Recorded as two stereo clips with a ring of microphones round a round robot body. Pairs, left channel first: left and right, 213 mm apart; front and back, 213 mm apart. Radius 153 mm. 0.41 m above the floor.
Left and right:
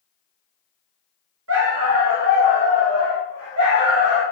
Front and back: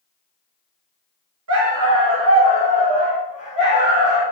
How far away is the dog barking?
About 1.3 m.